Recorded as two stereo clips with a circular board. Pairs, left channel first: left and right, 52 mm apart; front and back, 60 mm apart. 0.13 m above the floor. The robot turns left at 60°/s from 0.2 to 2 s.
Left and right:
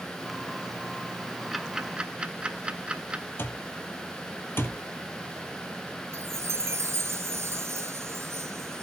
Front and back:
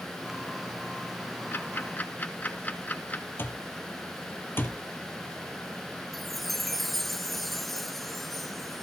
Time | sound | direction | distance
1.5 | ticking | 5° right | 1.1 m
3.4 | an alarm clock | 50° left | 1.4 m
6.1 | a chime | 90° right | 0.7 m